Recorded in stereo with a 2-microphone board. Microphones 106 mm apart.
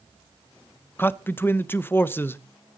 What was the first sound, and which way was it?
A man speaking, 20° left (ahead or behind).